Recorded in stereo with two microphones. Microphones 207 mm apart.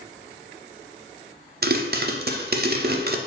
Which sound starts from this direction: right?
A pop, at 1.6 s.